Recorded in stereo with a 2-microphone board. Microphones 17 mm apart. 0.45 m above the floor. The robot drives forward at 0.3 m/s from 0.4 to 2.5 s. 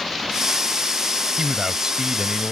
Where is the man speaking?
45° right (ahead or behind).